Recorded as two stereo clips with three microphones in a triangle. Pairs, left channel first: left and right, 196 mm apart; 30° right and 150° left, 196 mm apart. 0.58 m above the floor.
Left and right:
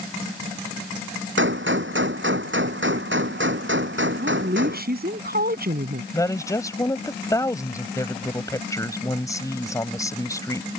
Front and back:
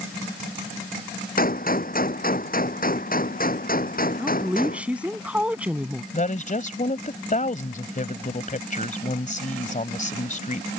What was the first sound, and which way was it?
A gunshot, 75° right.